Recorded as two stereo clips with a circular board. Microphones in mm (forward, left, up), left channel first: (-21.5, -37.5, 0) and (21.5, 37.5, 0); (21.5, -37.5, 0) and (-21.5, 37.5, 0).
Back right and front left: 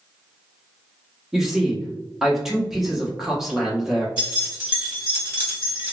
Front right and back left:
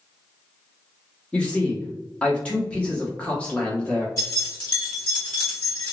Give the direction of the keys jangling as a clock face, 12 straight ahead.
12 o'clock.